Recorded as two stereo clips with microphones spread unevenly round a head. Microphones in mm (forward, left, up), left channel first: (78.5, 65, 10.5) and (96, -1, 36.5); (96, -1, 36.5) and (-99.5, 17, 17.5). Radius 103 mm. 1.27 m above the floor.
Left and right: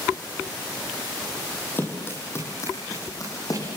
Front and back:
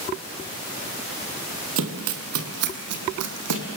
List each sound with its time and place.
1.8 s running footsteps: 165° right, 2.5 m; by 3.6 s 175° right, 4 m